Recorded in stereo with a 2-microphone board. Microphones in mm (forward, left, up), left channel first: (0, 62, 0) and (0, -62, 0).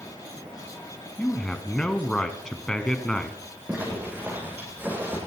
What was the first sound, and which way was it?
A man speaking, 5° left (ahead or behind).